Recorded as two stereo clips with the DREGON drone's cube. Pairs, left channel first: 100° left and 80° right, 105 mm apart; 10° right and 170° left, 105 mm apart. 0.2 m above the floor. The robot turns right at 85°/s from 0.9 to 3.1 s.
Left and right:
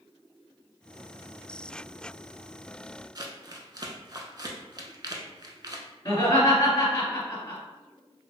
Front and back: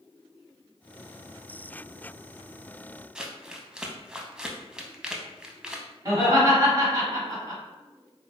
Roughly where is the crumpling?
Right.